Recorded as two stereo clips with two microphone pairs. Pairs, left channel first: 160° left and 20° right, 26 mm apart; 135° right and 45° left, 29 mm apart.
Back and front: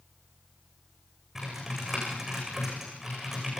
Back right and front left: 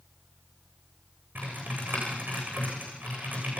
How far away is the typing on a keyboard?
About 10 m.